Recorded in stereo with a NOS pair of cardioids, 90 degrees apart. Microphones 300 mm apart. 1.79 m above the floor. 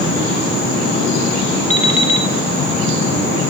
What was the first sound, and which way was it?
An alarm clock, 25° left.